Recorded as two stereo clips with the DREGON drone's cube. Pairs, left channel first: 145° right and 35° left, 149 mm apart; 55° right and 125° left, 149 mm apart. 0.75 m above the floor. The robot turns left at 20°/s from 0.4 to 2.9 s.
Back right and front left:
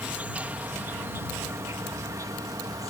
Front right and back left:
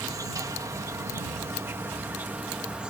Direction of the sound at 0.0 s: 100° left.